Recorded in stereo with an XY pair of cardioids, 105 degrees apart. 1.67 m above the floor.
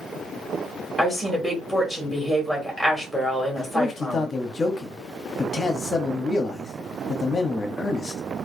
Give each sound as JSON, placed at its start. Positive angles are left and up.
{"t": 1.0, "sound": "a woman speaking", "azimuth_deg": -5, "distance_m": 1.8}
{"t": 3.6, "sound": "a man speaking", "azimuth_deg": 35, "distance_m": 0.8}